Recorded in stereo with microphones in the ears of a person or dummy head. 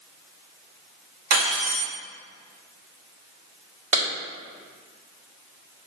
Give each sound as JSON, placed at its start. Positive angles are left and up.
{"t": 1.3, "sound": "cutlery clinking", "side_deg": -65, "distance_m": 1.9}
{"t": 3.9, "sound": "a clap", "side_deg": -40, "distance_m": 1.5}